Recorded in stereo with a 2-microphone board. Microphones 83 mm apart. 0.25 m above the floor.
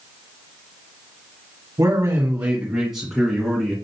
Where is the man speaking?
40° right (ahead or behind), 1.8 m; by 3.8 s 10° left (ahead or behind), 3 m.